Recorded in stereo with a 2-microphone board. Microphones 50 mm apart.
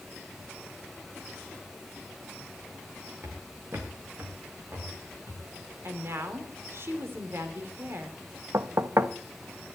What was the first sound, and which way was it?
Footsteps, 45° right (ahead or behind).